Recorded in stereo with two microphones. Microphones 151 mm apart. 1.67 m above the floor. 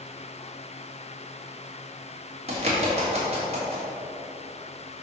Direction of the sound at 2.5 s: 45° right (ahead or behind).